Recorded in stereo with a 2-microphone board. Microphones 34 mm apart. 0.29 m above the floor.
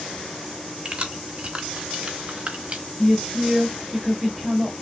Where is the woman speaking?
5° left (ahead or behind), 0.9 m.